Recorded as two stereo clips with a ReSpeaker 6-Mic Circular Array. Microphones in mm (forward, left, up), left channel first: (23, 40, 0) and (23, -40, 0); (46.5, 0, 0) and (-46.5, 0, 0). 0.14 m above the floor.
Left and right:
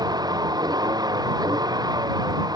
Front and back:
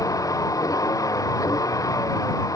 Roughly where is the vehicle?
Ahead right.